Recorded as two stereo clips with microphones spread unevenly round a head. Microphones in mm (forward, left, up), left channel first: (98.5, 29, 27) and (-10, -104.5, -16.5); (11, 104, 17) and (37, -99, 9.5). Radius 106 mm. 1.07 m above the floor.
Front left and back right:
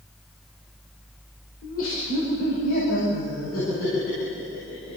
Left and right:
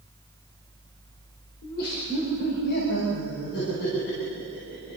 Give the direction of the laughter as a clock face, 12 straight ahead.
10 o'clock.